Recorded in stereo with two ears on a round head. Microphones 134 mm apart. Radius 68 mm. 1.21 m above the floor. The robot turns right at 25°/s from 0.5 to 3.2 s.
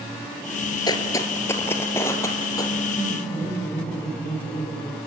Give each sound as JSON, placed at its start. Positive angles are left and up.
{"t": 0.9, "sound": "footsteps", "side_deg": 30, "distance_m": 1.4}
{"t": 2.9, "sound": "laughter", "side_deg": 40, "distance_m": 4.5}